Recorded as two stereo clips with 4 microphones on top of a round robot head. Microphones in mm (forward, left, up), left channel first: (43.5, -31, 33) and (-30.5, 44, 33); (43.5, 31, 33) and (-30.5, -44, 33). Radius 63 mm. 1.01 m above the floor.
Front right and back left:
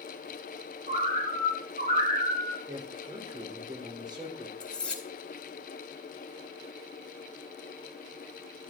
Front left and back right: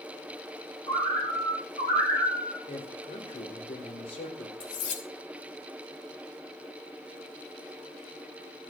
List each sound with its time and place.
0.9 s a bird: 105° left, 6 m
2.7 s a man speaking: 85° left, 4 m
4.6 s cutlery clinking: 35° left, 4 m